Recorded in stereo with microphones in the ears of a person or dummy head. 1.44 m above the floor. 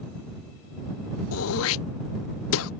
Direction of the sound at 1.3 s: 80° left.